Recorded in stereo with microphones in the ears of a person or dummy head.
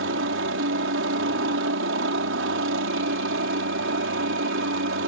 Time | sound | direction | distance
0.0 | a helicopter | 50° right (ahead or behind) | ?